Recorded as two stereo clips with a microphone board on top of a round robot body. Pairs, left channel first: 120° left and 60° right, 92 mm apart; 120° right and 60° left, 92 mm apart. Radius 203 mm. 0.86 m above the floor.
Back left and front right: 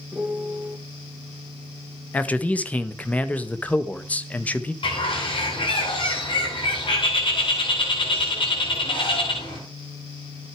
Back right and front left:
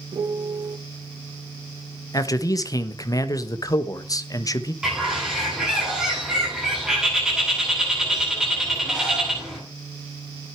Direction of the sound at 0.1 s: 15° left.